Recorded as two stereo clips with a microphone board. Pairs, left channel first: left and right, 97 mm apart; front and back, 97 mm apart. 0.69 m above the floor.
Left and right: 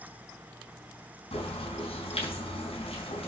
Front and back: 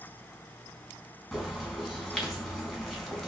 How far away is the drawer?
I don't hear a drawer.